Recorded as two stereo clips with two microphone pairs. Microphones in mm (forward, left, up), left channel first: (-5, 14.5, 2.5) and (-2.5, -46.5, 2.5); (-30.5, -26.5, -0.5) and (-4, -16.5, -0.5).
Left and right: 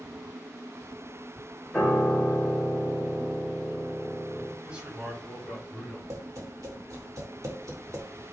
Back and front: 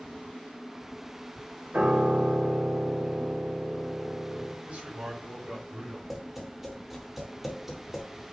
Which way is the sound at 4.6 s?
15° right.